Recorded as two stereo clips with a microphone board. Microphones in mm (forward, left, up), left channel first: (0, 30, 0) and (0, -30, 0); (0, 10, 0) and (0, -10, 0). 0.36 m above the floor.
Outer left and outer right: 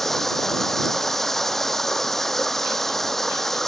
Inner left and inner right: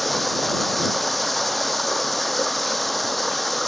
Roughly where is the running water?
Centre.